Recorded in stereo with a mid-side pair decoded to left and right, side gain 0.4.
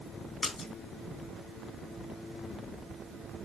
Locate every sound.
0.4 s a splash: 45° left, 2 m